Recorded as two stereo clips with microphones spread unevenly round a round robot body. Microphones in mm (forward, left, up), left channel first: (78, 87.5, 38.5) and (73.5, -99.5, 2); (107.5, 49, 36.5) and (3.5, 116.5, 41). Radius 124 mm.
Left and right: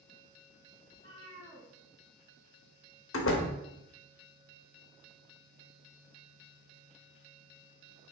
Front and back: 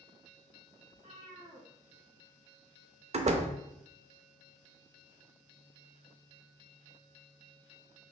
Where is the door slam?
115° left, 0.5 m.